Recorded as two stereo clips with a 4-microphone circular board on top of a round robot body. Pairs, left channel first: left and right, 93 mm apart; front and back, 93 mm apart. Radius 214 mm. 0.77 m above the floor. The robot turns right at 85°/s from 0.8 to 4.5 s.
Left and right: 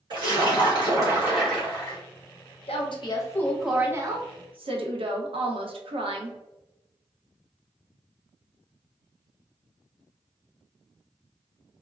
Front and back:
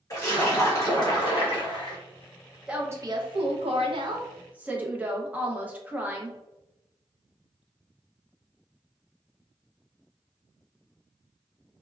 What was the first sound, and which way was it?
A splash, 55° right.